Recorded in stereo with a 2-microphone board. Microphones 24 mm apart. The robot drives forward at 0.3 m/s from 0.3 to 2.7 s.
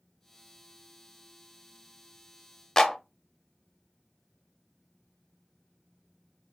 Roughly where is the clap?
Left.